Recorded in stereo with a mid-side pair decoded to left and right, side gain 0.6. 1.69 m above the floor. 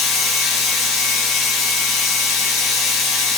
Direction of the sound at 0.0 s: 55° left.